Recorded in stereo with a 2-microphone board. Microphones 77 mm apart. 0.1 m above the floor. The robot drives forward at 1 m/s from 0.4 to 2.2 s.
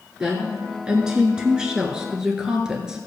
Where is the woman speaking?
10° right (ahead or behind), 1.8 m.